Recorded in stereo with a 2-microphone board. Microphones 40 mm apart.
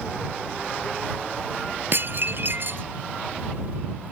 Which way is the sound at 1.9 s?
55° right (ahead or behind).